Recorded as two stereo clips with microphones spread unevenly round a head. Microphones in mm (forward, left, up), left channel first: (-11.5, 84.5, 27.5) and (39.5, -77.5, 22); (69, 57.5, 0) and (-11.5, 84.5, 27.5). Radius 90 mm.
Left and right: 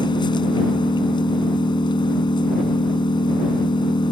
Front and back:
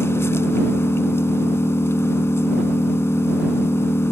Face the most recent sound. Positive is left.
turn(degrees=45)